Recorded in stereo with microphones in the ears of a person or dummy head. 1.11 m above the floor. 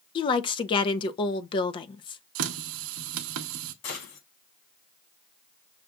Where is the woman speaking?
25° left (ahead or behind), 0.6 m.